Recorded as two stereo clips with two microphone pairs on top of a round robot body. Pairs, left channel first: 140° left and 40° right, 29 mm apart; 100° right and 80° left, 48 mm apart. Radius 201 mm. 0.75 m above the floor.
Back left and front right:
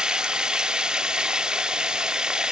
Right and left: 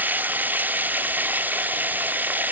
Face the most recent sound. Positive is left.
turn(degrees=25)